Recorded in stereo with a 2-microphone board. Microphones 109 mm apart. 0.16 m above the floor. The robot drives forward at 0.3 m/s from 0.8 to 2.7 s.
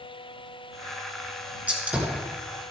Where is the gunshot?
15° right (ahead or behind), 2.5 m.